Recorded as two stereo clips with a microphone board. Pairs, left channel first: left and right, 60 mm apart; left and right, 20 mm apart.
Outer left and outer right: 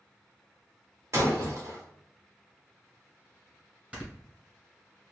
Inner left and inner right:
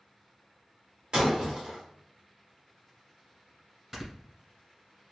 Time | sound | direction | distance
1.1 | breaking glass | 50° right (ahead or behind) | 1.7 m
3.9 | snoring | 20° right (ahead or behind) | 1.7 m